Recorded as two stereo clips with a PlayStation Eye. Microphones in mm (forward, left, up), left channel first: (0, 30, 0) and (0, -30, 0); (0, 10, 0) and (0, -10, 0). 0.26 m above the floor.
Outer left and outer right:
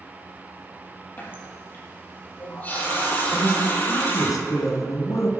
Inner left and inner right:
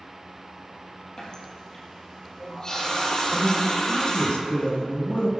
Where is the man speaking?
65° left (ahead or behind), 2.5 m.